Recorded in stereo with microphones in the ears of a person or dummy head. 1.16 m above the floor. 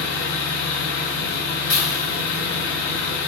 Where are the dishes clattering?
75° left (ahead or behind), 1.6 m.